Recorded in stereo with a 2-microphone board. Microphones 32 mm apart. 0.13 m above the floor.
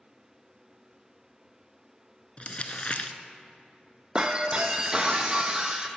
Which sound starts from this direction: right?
Breaking glass, at 4.2 s.